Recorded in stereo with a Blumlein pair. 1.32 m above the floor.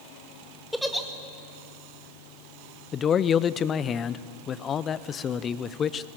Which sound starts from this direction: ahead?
A giggle, at 0.7 s.